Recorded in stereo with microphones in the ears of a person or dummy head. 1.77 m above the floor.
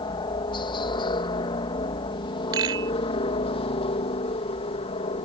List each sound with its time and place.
0.0 s a helicopter: 25° left (ahead or behind); by 5.3 s 30° left (ahead or behind)
2.5 s a rattle: 20° right (ahead or behind)